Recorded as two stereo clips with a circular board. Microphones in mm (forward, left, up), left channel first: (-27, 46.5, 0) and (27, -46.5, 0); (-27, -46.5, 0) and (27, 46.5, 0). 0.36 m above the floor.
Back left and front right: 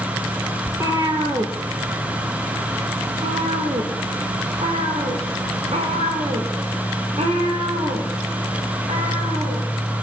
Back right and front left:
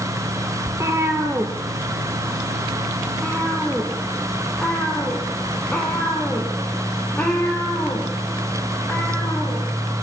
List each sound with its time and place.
0.7 s a cat meowing: straight ahead, 2.5 m; by 9.7 s 45° right, 10 m